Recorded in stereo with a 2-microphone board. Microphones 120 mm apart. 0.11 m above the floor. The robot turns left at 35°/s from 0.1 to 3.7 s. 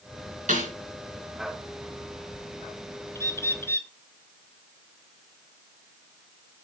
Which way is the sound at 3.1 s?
20° left (ahead or behind).